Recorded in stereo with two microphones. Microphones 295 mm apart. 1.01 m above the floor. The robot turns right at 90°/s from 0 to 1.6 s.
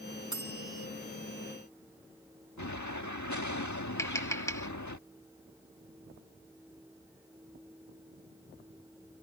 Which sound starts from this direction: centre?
Tapping, at 4.0 s.